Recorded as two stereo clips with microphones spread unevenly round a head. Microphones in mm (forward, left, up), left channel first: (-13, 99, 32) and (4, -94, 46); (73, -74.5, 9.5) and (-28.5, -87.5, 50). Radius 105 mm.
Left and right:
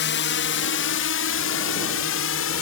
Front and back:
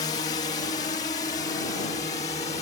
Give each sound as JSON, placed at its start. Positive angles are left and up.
{"t": 0.0, "sound": "a drone", "azimuth_deg": 65}